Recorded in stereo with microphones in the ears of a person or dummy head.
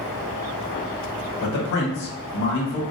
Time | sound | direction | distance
1.4 | a man speaking | 55° left (ahead or behind) | 0.9 m